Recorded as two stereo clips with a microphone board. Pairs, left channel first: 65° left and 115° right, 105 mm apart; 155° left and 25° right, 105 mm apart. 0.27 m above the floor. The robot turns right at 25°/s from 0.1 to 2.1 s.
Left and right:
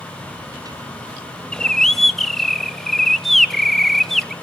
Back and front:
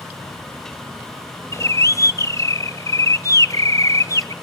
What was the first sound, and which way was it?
A bird, 140° left.